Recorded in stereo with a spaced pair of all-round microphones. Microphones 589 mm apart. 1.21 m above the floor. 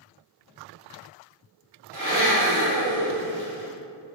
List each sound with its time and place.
1.9 s a blender: 40° right (ahead or behind), 2 m